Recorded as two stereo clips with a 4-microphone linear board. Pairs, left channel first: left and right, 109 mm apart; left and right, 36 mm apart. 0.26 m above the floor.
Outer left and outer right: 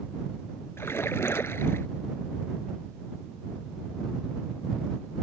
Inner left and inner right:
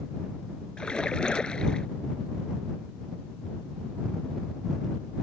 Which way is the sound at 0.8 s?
25° left (ahead or behind).